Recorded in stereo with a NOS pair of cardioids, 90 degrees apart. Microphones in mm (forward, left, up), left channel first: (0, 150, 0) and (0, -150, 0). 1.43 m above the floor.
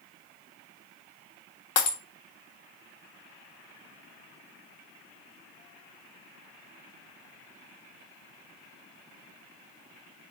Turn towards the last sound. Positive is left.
turn(degrees=60)